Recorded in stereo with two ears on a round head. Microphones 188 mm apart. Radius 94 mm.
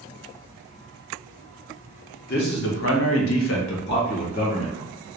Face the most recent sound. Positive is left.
turn(degrees=30)  # may be behind; listen again after turning